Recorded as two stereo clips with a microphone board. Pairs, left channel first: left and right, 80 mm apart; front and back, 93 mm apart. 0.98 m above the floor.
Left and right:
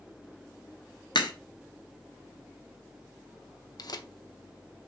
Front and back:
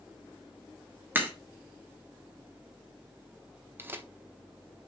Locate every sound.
1.1 s a crack: 110° left, 1.2 m
3.8 s tearing paper: 115° left, 0.7 m